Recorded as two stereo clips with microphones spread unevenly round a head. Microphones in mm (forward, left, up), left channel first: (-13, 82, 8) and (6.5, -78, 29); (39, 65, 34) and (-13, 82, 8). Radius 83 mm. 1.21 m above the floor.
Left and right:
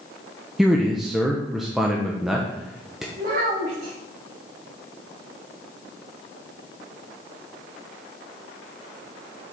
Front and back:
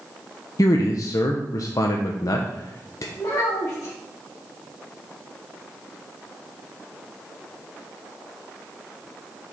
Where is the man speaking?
5° left, 0.7 m.